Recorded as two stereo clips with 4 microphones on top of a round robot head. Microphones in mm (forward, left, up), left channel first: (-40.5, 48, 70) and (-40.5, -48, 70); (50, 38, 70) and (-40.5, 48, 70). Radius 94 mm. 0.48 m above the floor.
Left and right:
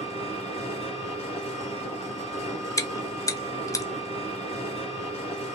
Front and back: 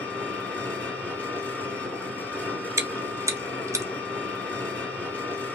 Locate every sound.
0.0 s an engine running: 70° left, 1.6 m
2.8 s chewing: 130° left, 0.7 m